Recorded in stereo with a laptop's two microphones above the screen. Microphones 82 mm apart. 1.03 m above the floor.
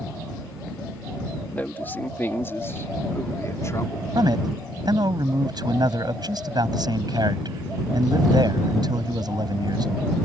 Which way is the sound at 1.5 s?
20° left (ahead or behind).